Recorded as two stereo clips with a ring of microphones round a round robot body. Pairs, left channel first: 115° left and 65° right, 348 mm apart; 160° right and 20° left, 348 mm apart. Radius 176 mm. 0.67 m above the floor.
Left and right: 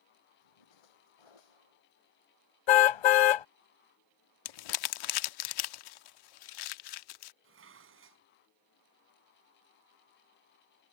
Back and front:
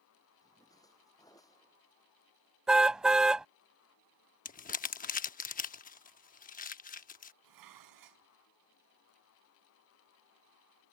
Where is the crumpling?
135° left.